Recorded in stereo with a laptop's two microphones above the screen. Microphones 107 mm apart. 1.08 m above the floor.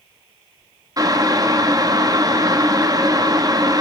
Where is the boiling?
35° right (ahead or behind), 0.8 m.